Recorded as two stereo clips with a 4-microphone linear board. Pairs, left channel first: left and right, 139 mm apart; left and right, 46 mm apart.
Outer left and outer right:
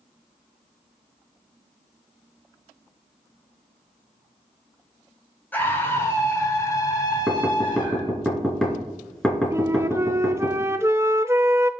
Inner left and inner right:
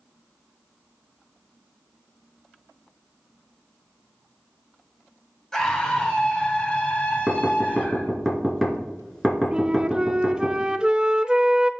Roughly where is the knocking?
Centre.